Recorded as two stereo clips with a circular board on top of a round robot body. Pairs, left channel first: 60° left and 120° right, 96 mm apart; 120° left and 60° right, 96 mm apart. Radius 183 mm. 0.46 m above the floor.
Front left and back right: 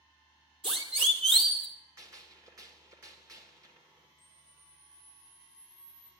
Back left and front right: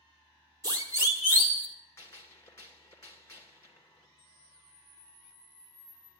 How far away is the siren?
About 3 m.